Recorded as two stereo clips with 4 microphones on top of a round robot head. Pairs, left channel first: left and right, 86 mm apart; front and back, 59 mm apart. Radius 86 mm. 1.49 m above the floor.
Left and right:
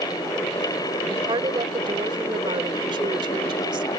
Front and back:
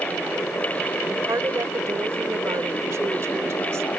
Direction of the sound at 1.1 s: 130° right.